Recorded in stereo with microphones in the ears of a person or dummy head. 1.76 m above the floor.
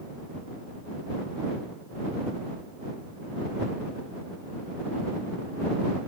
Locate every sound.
Only background noise.